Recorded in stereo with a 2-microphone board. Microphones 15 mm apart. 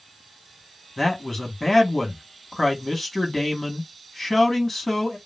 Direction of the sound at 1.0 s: 20° left (ahead or behind).